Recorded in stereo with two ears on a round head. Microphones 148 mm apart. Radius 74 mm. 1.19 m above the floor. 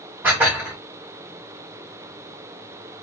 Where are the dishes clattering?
10° right (ahead or behind), 2.5 m.